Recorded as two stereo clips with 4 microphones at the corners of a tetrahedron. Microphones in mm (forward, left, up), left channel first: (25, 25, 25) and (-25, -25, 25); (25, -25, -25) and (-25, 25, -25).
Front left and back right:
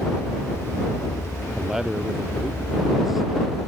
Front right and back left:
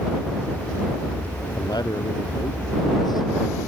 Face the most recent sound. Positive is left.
turn(degrees=-45)